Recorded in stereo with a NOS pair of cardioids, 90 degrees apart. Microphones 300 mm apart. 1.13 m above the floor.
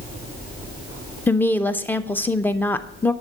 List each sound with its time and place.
1.3 s a woman speaking: 5° left, 0.5 m